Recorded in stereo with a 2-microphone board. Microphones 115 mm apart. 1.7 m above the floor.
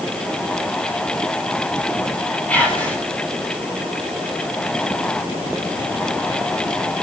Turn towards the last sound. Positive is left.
turn(degrees=10)  # may be behind; listen again after turning